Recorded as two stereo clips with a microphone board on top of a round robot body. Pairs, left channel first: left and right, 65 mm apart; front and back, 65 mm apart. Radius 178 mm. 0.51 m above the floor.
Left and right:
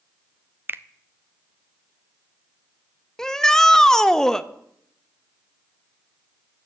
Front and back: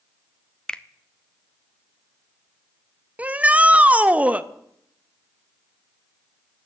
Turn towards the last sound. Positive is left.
turn(degrees=160)